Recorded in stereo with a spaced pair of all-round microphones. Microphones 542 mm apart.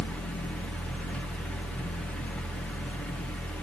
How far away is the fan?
About 1.9 m.